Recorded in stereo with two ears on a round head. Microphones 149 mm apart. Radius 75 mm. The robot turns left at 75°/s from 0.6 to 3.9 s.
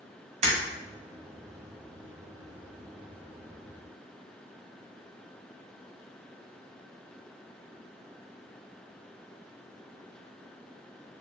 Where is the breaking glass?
40° right (ahead or behind), 1.6 m.